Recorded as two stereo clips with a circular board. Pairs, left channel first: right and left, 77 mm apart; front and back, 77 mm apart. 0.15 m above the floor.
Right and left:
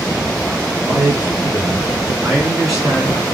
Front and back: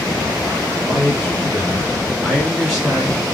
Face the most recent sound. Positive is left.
turn(degrees=-135)